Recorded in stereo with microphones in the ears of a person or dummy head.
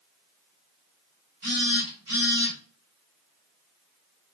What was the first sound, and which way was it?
A phone buzzing, 40° right (ahead or behind).